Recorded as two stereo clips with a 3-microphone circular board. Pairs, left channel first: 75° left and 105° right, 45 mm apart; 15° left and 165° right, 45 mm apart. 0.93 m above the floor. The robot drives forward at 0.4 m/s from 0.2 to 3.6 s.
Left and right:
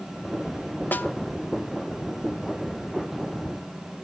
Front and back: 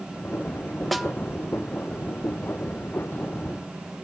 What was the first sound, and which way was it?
A snare drum, 100° left.